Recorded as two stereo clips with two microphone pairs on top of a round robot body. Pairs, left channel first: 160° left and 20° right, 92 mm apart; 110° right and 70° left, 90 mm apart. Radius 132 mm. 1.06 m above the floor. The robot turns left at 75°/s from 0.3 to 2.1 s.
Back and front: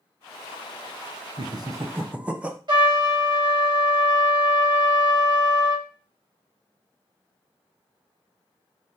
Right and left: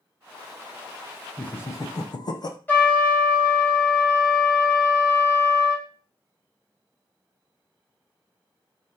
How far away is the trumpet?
About 1.4 m.